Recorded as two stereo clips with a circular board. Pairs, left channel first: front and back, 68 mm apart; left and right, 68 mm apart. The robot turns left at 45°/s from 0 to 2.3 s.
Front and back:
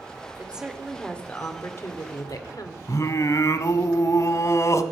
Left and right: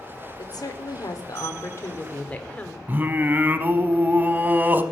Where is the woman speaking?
110° left, 1.5 m; by 2.8 s 20° left, 1.5 m.